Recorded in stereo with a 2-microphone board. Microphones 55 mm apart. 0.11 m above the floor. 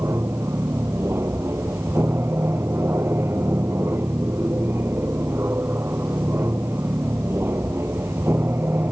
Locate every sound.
0.0 s an aircraft: 50° right (ahead or behind); by 8.9 s 45° right (ahead or behind)